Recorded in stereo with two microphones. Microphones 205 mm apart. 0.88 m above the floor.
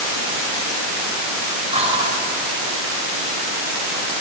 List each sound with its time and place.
1.7 s whispering: 30° right (ahead or behind), 3.5 m